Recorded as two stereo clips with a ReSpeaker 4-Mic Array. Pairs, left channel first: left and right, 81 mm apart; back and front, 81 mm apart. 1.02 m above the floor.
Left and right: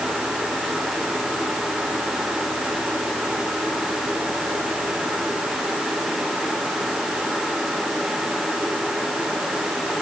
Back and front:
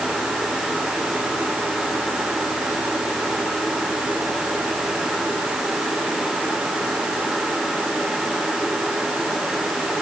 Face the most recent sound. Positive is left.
No sound to turn to.